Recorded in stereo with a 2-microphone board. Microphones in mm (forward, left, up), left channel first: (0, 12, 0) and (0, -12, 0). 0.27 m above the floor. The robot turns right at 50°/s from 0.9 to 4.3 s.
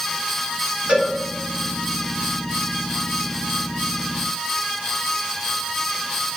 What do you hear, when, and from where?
0.9 s a cowbell: 60° right (ahead or behind), 1.4 m; by 1.1 s 50° right (ahead or behind), 1.4 m